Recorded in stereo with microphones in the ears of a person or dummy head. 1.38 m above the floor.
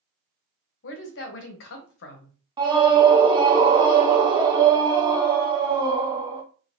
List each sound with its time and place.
0.8 s a woman speaking: 75° left (ahead or behind), 1.0 m
2.6 s a scream: 25° right (ahead or behind), 0.7 m